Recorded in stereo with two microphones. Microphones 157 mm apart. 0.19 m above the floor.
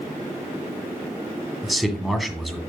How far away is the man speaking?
About 1.8 m.